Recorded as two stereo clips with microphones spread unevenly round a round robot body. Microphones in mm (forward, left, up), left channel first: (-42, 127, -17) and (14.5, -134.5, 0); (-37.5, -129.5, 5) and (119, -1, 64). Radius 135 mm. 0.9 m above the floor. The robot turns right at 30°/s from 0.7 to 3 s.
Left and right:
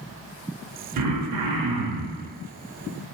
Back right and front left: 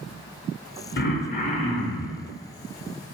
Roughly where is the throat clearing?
Right.